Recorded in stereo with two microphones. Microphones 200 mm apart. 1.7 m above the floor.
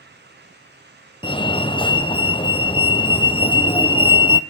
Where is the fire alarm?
25° left (ahead or behind), 0.8 m.